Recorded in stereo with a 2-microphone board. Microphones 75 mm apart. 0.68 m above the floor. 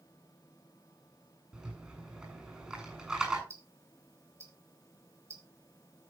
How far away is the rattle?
About 7 m.